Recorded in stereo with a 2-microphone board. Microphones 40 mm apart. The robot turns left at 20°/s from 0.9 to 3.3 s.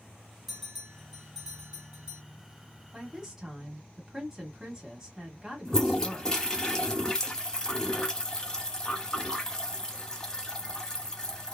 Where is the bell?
5° right (ahead or behind), 1.4 m; by 2.2 s 25° right (ahead or behind), 1.4 m.